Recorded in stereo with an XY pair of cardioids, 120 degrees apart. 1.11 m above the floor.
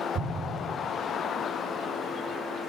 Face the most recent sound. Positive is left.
turn(degrees=-70)